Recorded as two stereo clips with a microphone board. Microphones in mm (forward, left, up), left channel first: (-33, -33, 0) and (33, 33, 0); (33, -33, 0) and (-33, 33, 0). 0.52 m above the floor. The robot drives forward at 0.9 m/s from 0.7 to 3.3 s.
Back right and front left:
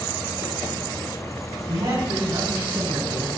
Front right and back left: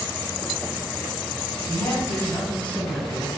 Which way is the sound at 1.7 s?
25° left.